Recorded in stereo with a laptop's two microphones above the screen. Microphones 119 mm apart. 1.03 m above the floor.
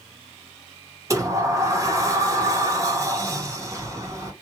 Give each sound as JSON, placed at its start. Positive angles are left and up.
{"t": 1.1, "sound": "a sliding door", "side_deg": -25, "distance_m": 0.9}